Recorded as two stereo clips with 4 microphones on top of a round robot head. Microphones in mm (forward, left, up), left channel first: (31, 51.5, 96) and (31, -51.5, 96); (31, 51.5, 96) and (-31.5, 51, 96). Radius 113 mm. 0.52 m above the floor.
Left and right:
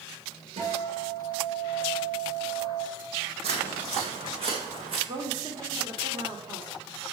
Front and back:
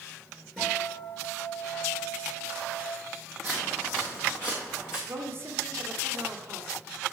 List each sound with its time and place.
0.6 s a guitar: 85° right, 5 m
3.4 s footsteps: 85° right, 1.6 m; by 5.0 s 60° right, 2.5 m
5.1 s a woman speaking: 130° right, 2 m